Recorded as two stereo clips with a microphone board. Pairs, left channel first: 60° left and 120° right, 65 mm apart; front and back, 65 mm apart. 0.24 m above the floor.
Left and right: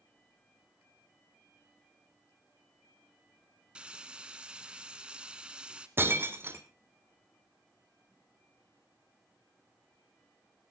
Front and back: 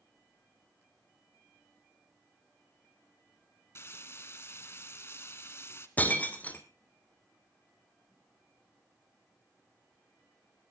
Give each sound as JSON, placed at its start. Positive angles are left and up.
{"t": 3.8, "sound": "frying", "azimuth_deg": -45, "distance_m": 0.9}
{"t": 6.0, "sound": "breaking glass", "azimuth_deg": -65, "distance_m": 1.3}